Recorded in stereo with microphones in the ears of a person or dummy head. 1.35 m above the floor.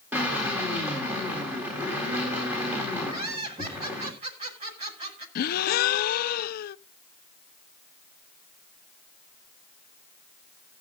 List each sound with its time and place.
0.1 s a drill: 10° right (ahead or behind), 4 m
3.1 s laughter: 40° right (ahead or behind), 5.5 m
5.3 s a gasp: 50° left (ahead or behind), 0.5 m